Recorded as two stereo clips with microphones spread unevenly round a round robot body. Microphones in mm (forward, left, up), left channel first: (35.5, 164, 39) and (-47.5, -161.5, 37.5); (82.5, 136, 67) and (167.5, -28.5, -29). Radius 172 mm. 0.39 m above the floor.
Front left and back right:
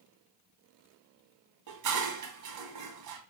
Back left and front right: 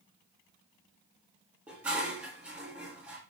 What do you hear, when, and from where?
1.7 s dishes clattering: 140° right, 2 m